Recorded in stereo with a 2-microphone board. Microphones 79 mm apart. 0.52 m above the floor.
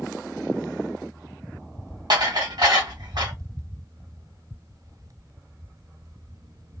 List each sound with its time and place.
2.1 s dishes clattering: 65° right (ahead or behind), 1.7 m